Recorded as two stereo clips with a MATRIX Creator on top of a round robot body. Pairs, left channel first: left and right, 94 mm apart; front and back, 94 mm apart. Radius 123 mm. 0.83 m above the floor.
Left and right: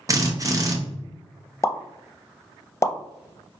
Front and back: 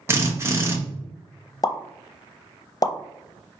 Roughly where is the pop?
Ahead left.